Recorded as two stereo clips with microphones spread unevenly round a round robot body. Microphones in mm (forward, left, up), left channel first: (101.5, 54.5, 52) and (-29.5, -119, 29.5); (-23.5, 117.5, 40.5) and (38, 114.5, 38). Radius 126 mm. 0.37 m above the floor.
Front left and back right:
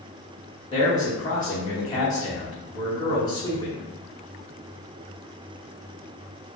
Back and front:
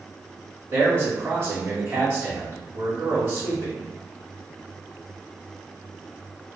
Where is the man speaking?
15° right, 1.2 m.